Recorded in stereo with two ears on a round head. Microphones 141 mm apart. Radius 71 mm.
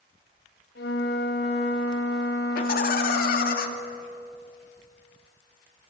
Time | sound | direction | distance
0.8 | a flute | 75° left (ahead or behind) | 6 m
2.5 | laughter | 65° left (ahead or behind) | 2.5 m